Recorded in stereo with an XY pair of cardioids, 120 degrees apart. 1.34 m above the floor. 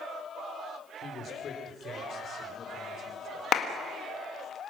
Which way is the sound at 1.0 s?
50° left.